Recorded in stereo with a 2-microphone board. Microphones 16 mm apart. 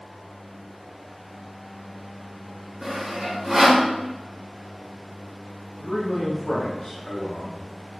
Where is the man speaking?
55° left (ahead or behind), 1.5 m.